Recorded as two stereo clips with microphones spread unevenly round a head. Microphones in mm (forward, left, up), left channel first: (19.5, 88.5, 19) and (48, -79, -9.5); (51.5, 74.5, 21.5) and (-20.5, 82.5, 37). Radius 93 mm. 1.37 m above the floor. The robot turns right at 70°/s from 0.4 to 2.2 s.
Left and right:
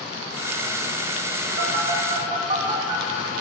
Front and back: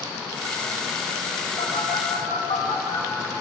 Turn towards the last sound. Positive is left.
turn(degrees=-20)